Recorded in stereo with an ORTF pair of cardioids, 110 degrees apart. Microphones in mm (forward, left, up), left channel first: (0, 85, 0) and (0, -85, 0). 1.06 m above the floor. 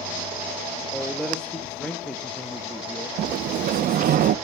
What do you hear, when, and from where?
0.9 s a man speaking: 5° left, 1.9 m
3.2 s a sliding door: 55° right, 0.8 m